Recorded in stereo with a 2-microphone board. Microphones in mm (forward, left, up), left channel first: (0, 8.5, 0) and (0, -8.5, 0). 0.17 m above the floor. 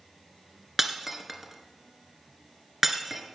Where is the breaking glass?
15° right (ahead or behind), 1.7 m.